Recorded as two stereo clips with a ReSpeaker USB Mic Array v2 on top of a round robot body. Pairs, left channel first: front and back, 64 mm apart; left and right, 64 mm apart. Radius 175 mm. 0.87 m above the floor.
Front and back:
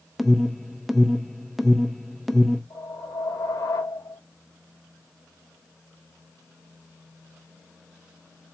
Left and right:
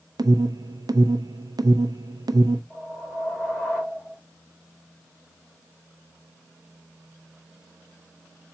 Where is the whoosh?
Straight ahead, 3 m.